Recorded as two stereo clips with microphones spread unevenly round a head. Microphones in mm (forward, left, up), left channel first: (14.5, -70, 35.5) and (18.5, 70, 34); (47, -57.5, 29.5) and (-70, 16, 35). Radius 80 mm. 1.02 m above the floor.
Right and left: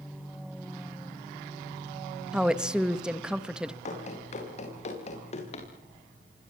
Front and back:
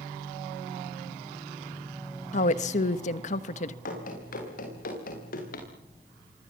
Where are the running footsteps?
55° right, 10 m; by 5.7 s 50° right, 8 m.